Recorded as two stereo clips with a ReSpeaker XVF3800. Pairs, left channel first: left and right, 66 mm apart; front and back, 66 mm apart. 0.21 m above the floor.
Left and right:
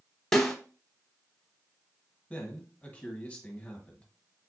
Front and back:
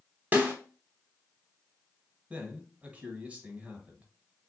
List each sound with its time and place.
0.3 s a snare drum: 165° left, 1.0 m
2.3 s a man speaking: 135° left, 1.1 m